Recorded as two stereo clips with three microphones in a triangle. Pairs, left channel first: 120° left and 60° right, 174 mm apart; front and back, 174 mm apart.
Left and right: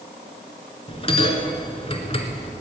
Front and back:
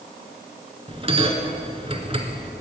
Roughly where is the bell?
Behind left.